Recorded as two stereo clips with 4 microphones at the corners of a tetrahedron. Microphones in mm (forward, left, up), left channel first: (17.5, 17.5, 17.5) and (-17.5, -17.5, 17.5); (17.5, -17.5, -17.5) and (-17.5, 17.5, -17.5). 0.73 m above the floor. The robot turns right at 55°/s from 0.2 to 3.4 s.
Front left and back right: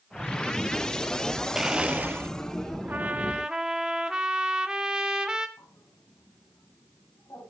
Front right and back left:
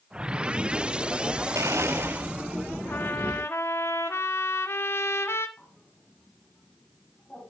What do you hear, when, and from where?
1.6 s a blender: 145° left, 0.5 m; by 2.3 s 175° right, 0.5 m
2.9 s a trumpet: 90° right, 1.2 m; by 5.5 s 60° right, 1.2 m
5.6 s a bird: 25° left, 3.5 m